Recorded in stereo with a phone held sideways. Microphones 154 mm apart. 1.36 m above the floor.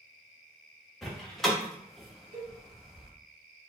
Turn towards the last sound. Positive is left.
turn(degrees=-50)  # may be behind; listen again after turning